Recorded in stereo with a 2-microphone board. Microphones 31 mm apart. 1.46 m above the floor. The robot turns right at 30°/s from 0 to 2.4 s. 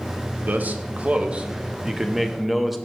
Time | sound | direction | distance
0.4 | a man speaking | 65° right | 0.7 m